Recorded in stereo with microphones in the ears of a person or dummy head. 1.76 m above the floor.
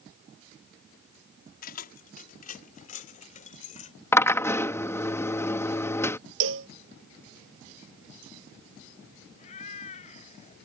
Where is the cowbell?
80° right.